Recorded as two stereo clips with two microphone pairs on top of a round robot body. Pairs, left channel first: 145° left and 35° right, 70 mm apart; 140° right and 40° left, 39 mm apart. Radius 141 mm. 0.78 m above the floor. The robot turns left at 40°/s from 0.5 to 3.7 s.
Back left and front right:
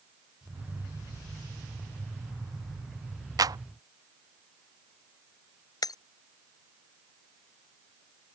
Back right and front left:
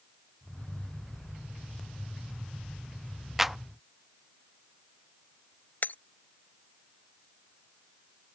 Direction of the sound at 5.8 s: Straight behind.